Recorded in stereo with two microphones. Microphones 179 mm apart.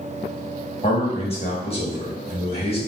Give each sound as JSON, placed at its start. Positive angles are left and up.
{"t": 0.8, "sound": "a man speaking", "side_deg": 30, "distance_m": 1.0}